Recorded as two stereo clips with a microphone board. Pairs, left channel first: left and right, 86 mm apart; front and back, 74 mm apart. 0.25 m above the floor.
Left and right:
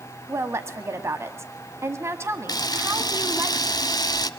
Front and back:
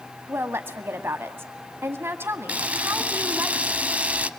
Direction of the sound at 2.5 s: 115° left.